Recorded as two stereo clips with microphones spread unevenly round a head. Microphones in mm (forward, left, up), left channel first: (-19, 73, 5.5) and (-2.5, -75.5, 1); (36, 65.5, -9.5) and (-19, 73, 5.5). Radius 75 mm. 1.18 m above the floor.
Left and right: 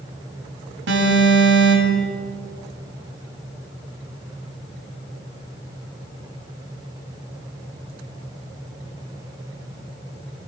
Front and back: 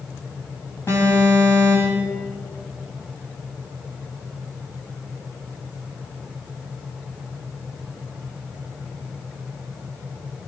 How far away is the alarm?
About 7.5 m.